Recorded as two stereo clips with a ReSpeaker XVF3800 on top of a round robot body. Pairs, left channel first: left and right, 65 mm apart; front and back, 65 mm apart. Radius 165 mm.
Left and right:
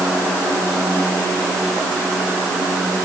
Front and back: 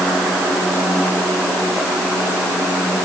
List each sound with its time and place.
Only background noise.